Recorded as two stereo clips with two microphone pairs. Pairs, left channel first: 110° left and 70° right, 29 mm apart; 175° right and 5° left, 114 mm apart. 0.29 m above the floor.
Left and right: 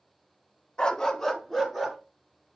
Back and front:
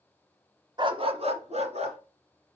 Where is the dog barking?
50° left, 0.7 m; by 2.0 s 15° left, 2.0 m.